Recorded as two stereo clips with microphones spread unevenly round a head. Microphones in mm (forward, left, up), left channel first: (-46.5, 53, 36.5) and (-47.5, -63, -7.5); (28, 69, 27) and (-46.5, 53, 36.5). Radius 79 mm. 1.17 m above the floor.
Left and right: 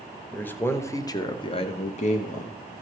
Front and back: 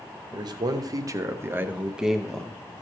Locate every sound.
0.3 s a man speaking: 165° left, 1.2 m; by 2.5 s 90° left, 0.9 m